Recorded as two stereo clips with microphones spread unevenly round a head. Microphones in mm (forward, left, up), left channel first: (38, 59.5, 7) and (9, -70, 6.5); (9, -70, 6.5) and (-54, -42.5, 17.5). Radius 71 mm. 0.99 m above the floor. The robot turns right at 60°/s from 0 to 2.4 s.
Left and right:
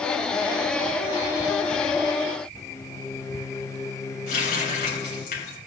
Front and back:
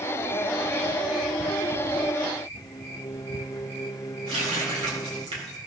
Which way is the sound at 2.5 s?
15° left.